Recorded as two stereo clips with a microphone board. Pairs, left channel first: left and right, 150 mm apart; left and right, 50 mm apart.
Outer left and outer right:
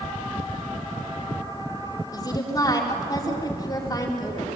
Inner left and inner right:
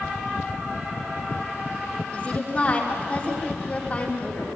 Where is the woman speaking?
25° left (ahead or behind), 4.5 m.